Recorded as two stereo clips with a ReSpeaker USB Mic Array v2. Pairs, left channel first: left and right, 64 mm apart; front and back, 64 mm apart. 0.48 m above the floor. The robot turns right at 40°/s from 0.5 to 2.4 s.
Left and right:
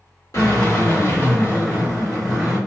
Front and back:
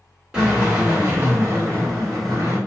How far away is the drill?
About 1.8 m.